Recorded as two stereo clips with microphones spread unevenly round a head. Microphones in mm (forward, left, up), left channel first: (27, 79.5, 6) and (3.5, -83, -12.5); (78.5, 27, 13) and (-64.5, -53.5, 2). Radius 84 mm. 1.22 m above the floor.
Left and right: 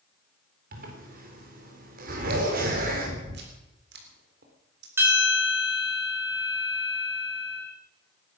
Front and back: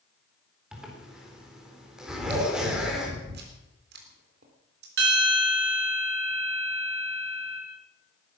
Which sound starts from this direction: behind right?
Chewing, at 2.1 s.